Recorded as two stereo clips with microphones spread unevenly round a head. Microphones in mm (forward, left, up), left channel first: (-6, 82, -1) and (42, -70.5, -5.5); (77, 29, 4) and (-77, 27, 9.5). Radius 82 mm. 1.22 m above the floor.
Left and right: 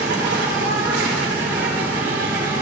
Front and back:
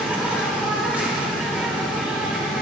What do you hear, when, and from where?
0.0 s an insect: 100° right, 2.5 m